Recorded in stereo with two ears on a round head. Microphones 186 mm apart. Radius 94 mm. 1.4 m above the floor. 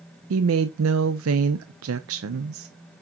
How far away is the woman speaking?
About 0.6 m.